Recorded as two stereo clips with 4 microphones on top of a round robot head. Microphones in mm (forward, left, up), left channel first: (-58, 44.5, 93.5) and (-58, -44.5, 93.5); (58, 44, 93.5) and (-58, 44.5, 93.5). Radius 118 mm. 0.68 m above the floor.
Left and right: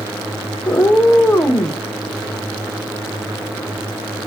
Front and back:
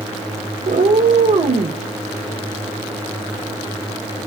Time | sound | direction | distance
0.7 | a cat meowing | 155° left | 0.9 m